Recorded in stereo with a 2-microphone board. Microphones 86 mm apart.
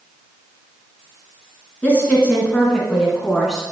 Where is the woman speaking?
20° left (ahead or behind), 2 m; by 3.7 s 5° right (ahead or behind), 1.9 m.